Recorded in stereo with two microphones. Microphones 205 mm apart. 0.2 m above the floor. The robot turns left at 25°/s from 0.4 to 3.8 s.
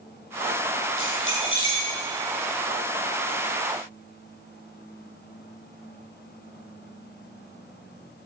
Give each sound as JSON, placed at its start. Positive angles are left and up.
{"t": 1.0, "sound": "keys jangling", "side_deg": 75, "distance_m": 4.0}